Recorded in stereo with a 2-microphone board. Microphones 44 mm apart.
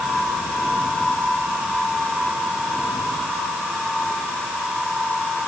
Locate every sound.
Only background noise.